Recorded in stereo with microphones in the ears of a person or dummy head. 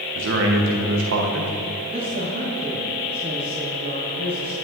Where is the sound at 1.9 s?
60° right (ahead or behind), 2 m.